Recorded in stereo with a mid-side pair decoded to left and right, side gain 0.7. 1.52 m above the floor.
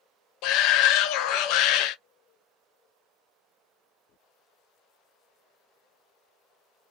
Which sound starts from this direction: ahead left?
A shout, at 0.4 s.